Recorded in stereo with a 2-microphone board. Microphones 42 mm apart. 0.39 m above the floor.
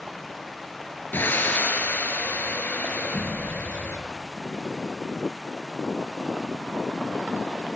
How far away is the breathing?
About 6 m.